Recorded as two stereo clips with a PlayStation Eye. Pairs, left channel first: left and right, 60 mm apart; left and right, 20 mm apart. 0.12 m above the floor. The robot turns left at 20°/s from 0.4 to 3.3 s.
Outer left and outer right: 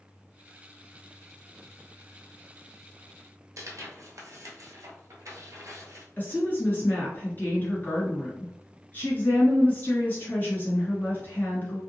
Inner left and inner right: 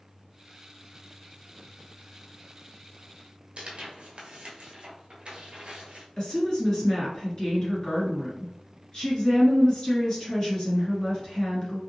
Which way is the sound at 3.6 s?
60° right (ahead or behind).